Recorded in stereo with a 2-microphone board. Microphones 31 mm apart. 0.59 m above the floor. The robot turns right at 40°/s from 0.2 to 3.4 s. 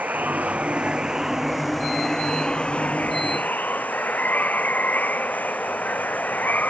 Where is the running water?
60° right; by 6.7 s 65° left.